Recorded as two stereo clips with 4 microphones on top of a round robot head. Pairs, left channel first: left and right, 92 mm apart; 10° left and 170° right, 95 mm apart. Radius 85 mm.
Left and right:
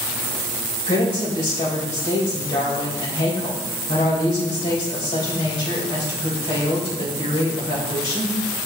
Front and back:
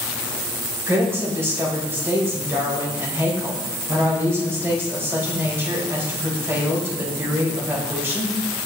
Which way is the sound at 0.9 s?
125° left.